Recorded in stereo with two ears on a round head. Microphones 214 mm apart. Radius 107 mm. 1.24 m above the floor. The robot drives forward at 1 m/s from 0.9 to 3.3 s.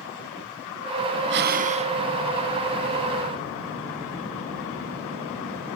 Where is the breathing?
50° right (ahead or behind), 0.6 m; by 2.0 s 25° right (ahead or behind), 1.1 m.